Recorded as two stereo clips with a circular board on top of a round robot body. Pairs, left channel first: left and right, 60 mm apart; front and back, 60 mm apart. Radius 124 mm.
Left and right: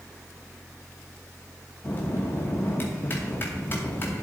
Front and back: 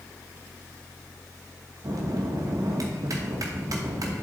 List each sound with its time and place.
1.8 s a bell: 150° left, 0.9 m